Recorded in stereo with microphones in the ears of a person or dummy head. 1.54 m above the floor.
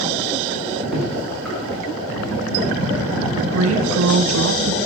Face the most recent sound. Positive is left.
turn(degrees=-85)